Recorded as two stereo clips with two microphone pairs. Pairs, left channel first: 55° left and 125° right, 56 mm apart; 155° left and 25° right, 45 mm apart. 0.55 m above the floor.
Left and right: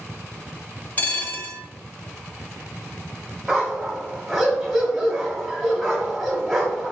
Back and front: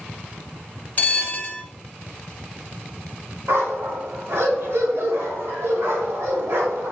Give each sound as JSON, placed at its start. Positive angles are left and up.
{"t": 1.0, "sound": "a bell", "azimuth_deg": 110, "distance_m": 0.6}
{"t": 3.5, "sound": "a dog barking", "azimuth_deg": -30, "distance_m": 1.1}